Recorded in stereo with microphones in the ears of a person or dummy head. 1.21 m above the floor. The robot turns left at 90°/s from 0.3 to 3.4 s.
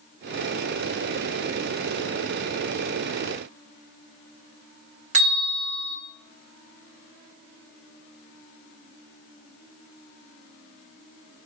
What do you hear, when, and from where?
5.1 s a bell: 45° right (ahead or behind), 1.0 m